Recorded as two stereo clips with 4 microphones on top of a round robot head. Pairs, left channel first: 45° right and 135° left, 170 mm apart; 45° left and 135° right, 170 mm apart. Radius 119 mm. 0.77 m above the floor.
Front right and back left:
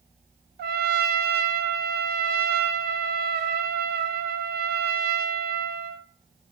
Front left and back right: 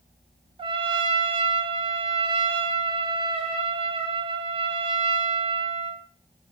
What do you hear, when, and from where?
0.6 s a trumpet: 165° left, 0.5 m